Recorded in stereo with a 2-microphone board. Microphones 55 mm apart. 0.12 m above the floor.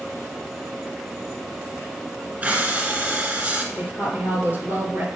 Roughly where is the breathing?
Right.